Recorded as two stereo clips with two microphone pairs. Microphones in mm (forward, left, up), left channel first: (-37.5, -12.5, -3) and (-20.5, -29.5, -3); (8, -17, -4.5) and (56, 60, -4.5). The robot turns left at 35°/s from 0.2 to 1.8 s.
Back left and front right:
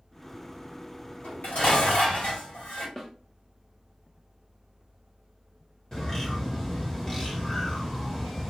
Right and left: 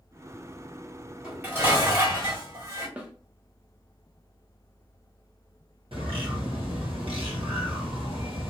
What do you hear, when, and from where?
1.2 s dishes clattering: 135° left, 1.8 m; by 2.9 s 115° left, 1.8 m
3.0 s a snare drum: 90° left, 0.7 m
5.9 s a bird: 65° left, 0.9 m